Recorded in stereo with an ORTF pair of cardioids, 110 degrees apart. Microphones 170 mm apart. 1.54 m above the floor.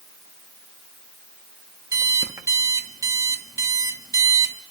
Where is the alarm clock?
20° right, 1.8 m.